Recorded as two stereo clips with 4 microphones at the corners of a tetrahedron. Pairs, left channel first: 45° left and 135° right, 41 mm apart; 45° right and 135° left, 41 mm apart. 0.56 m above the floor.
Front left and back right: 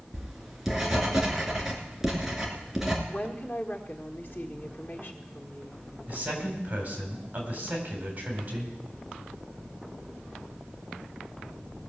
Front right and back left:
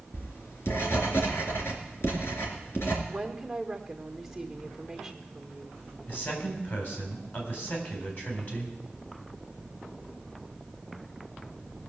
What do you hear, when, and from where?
0.1 s writing: 55° right, 2.5 m
3.1 s a woman speaking: 45° left, 1.5 m
6.1 s a man speaking: 85° right, 4 m